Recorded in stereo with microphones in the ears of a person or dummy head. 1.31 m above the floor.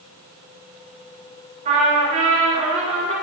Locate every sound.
1.6 s a trumpet: 40° right (ahead or behind), 5 m